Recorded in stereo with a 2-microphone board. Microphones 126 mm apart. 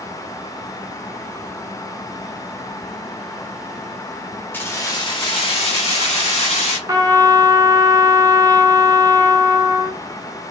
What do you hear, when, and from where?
4.5 s keys jangling: 15° left (ahead or behind), 0.8 m; by 6.8 s 65° left (ahead or behind), 1.9 m
6.9 s a trumpet: 30° right (ahead or behind), 0.6 m